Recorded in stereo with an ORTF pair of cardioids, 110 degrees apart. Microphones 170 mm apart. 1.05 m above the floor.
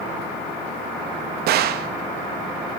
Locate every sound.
1.5 s a gunshot: 65° right, 0.9 m